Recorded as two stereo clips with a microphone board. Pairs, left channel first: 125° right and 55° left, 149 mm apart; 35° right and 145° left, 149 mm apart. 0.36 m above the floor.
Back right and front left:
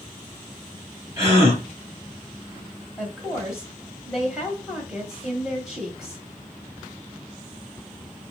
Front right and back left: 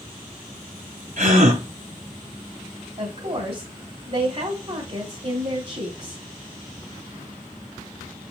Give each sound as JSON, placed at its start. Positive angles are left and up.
{"t": 1.2, "sound": "a gasp", "azimuth_deg": 130, "distance_m": 3.0}
{"t": 3.0, "sound": "a woman speaking", "azimuth_deg": 140, "distance_m": 1.7}